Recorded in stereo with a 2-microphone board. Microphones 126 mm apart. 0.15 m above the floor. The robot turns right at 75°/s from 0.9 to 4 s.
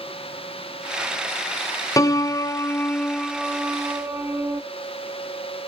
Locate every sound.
2.0 s a piano: 25° left (ahead or behind), 0.5 m; by 4.6 s 20° right (ahead or behind), 0.5 m